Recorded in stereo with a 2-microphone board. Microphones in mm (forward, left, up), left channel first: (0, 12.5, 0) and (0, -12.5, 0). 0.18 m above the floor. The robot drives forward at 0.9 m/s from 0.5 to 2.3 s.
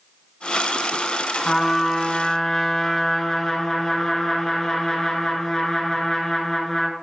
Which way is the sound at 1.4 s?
35° left (ahead or behind).